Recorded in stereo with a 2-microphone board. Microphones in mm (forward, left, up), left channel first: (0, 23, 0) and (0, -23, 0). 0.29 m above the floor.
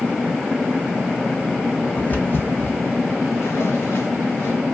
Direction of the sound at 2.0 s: 30° left (ahead or behind).